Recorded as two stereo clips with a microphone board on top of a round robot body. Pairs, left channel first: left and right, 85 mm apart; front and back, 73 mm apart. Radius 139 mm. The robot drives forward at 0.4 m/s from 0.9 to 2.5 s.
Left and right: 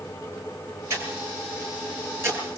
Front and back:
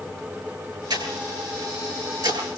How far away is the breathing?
About 10 m.